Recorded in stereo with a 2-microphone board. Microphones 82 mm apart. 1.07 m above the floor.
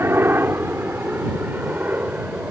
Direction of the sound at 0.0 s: 30° right (ahead or behind).